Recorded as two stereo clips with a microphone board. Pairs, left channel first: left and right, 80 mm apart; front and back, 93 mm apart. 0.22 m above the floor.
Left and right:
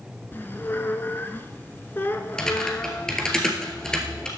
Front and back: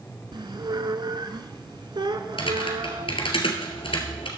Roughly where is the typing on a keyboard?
Ahead.